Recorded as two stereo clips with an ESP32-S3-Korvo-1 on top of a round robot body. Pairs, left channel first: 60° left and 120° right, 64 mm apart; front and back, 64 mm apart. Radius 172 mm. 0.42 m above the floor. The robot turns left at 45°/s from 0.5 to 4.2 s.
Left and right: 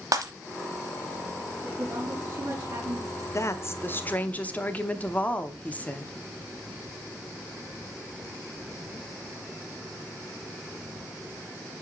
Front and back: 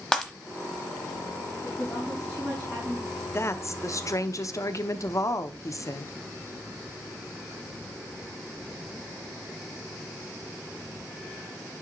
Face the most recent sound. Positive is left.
turn(degrees=0)